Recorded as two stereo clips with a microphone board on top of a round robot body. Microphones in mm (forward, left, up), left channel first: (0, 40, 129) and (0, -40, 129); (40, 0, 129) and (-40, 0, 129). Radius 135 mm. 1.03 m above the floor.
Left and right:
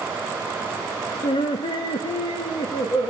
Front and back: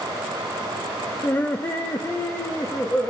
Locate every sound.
1.2 s laughter: 70° left, 0.6 m